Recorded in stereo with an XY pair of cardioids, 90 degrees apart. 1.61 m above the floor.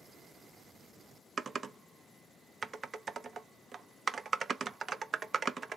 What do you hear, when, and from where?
1.4 s typing on a keyboard: 45° right, 0.5 m